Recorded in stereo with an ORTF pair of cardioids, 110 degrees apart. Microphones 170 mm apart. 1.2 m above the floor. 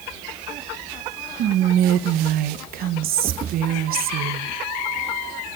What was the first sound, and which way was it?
Whispering, 60° right.